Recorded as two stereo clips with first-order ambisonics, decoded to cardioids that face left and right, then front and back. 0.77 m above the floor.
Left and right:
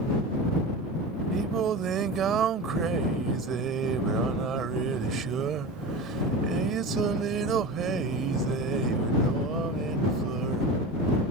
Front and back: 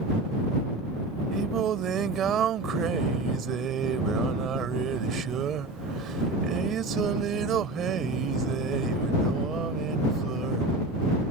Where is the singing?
135° right.